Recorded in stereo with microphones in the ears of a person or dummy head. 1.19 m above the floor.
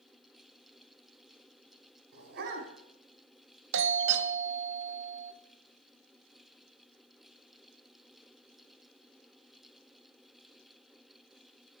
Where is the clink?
I don't hear a clink.